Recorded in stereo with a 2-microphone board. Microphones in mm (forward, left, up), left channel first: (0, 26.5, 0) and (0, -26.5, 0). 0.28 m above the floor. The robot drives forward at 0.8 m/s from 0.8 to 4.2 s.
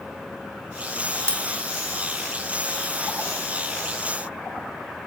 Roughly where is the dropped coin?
Left.